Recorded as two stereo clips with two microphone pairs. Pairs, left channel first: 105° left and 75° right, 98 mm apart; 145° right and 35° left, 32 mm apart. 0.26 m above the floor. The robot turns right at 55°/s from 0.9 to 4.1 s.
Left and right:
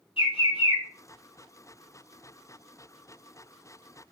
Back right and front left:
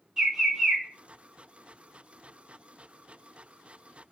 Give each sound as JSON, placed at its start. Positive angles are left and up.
{"t": 0.2, "sound": "a bird", "azimuth_deg": 100, "distance_m": 1.4}